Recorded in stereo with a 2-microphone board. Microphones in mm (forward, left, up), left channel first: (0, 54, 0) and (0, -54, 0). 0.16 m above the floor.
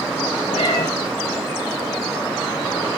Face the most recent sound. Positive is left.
turn(degrees=70)  # may be behind; listen again after turning